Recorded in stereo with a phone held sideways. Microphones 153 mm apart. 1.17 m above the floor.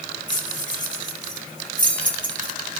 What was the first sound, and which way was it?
Keys jangling, 60° left (ahead or behind).